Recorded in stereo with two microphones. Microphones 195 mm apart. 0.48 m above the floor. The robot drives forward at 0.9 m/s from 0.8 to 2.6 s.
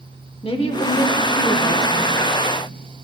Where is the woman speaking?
30° left (ahead or behind), 1.0 m; by 2.0 s 15° left (ahead or behind), 1.9 m.